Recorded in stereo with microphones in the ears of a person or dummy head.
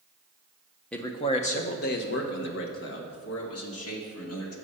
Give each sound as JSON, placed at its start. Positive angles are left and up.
{"t": 0.9, "sound": "a man speaking", "side_deg": 0, "distance_m": 0.5}